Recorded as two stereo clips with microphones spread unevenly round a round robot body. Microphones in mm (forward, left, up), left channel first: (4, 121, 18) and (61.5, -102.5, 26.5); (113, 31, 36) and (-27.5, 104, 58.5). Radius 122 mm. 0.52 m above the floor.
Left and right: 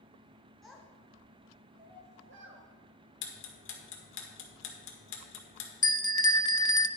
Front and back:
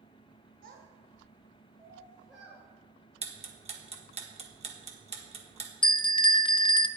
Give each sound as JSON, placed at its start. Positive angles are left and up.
{"t": 0.6, "sound": "a child speaking", "azimuth_deg": -170, "distance_m": 1.5}
{"t": 3.2, "sound": "ticking", "azimuth_deg": 105, "distance_m": 1.6}
{"t": 5.8, "sound": "a bell", "azimuth_deg": 30, "distance_m": 0.6}